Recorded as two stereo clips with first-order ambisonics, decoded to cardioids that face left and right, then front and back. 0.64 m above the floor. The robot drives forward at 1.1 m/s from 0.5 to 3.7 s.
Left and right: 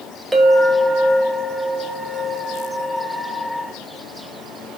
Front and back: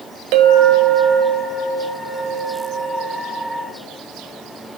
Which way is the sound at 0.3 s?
175° right.